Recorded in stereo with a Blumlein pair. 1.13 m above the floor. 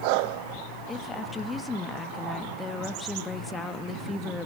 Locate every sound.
0.9 s a woman speaking: 15° left, 1.3 m